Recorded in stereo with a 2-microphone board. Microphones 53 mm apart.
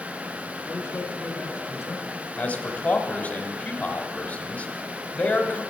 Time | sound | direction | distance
0.6 | a man speaking | 45° left (ahead or behind) | 3 m
2.4 | a man speaking | 30° left (ahead or behind) | 1.2 m